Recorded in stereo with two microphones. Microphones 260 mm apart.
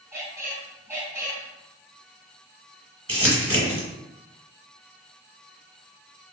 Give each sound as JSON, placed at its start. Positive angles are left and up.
{"t": 0.1, "sound": "a squeak", "side_deg": -10, "distance_m": 0.8}
{"t": 3.1, "sound": "crumpling", "side_deg": -60, "distance_m": 1.3}